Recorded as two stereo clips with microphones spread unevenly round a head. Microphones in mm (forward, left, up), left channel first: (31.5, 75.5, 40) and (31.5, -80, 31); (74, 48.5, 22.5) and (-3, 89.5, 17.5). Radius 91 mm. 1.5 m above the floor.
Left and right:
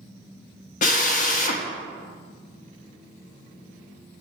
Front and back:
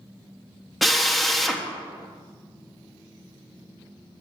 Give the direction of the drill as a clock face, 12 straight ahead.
10 o'clock.